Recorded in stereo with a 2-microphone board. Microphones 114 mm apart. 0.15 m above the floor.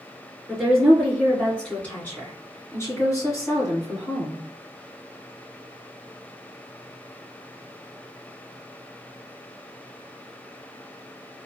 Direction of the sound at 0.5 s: Centre (ahead or behind).